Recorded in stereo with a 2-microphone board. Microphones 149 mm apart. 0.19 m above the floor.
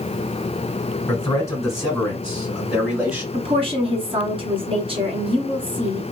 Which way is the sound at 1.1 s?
25° left (ahead or behind).